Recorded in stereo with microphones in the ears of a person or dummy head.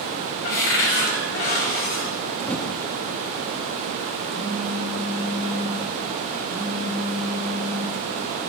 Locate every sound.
0.4 s a cupboard door: 45° left (ahead or behind), 0.8 m
2.5 s typing on a keyboard: 15° left (ahead or behind), 0.6 m
4.3 s a phone buzzing: 65° left (ahead or behind), 4.5 m